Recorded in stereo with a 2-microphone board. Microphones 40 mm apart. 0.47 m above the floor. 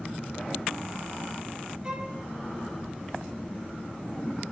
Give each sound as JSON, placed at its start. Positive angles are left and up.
{"t": 1.8, "sound": "a violin", "side_deg": -15, "distance_m": 1.0}